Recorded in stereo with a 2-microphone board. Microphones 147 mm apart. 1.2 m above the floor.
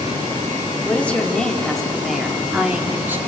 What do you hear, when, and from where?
0.8 s a woman speaking: 10° left (ahead or behind), 3 m; by 3.2 s 15° right (ahead or behind), 2.5 m